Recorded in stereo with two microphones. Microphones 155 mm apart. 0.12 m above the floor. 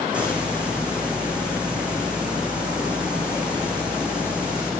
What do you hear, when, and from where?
0.1 s a hiss: 5° right (ahead or behind), 1.6 m